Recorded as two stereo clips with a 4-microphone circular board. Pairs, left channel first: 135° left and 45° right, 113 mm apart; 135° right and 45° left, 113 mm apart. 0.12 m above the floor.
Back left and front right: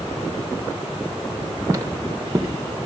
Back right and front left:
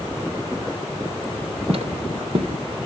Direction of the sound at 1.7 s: 20° left.